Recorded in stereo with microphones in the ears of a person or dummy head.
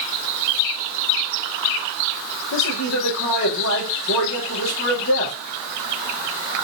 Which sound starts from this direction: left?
A man speaking, at 2.5 s.